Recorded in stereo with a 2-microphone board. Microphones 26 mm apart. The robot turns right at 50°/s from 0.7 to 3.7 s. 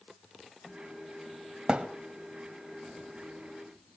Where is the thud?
30° right (ahead or behind), 1.9 m; by 1.9 s 40° right (ahead or behind), 1.9 m.